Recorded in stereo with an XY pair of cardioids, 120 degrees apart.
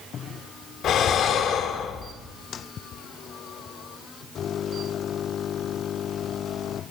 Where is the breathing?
55° left, 1.8 m.